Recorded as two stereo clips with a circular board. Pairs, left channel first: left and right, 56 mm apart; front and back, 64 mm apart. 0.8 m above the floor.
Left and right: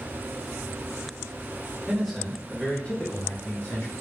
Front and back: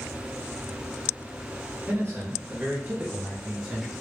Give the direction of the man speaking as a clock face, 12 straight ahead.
6 o'clock.